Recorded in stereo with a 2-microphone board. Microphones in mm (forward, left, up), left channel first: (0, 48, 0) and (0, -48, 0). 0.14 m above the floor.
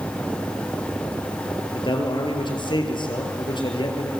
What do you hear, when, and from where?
1.7 s a man speaking: 55° left (ahead or behind), 3.5 m